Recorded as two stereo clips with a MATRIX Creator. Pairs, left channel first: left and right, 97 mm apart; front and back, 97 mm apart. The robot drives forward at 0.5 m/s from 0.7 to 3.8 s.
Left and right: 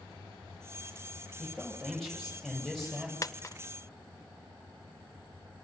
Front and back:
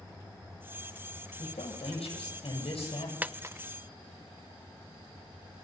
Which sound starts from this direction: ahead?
A man speaking, at 1.4 s.